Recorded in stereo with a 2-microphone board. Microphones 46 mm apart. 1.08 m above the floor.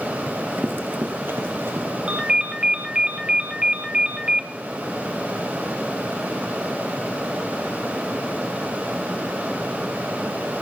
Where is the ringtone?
20° right (ahead or behind), 0.8 m.